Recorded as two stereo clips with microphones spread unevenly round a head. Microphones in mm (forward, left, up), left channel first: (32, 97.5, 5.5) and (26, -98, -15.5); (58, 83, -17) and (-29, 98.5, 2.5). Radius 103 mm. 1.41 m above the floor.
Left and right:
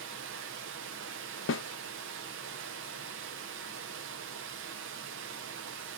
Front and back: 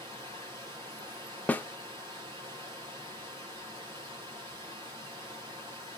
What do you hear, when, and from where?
0.0 s running water: 130° right, 0.7 m
1.5 s a snare drum: 60° left, 0.7 m